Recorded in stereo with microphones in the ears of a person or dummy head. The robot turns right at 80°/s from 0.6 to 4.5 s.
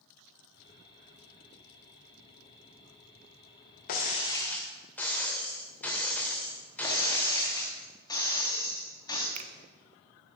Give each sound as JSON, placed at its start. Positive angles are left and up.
{"t": 3.9, "sound": "breaking glass", "azimuth_deg": 125, "distance_m": 2.0}
{"t": 6.8, "sound": "breaking glass", "side_deg": 20, "distance_m": 3.0}
{"t": 9.3, "sound": "a finger snap", "side_deg": -30, "distance_m": 1.0}